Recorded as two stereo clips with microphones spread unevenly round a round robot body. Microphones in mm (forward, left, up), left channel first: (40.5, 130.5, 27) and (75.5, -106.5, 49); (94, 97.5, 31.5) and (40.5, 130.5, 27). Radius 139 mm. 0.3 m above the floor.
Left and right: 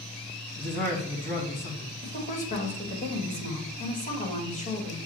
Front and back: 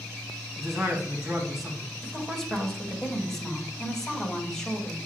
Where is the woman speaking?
50° left, 1.8 m.